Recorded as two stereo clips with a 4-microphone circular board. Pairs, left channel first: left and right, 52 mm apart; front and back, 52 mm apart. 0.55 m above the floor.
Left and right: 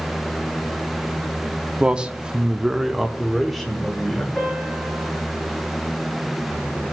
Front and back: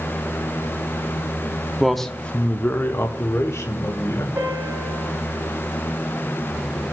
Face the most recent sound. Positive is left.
turn(degrees=155)